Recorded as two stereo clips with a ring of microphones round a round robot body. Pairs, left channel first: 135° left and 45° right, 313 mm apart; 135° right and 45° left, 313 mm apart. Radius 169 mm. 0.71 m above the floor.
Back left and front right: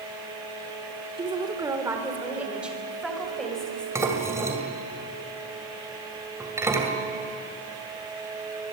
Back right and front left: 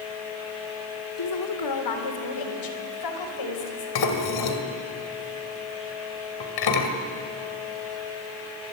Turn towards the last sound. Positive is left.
turn(degrees=-125)